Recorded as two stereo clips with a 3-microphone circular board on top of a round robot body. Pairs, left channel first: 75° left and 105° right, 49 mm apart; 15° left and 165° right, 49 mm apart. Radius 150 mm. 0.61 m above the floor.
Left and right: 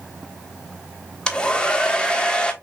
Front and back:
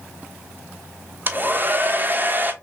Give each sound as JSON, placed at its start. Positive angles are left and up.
{"t": 1.3, "sound": "a hair dryer", "azimuth_deg": 145, "distance_m": 1.1}